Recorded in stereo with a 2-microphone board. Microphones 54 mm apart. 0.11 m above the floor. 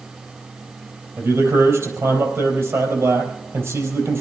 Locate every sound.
1.2 s a man speaking: 55° right (ahead or behind), 4 m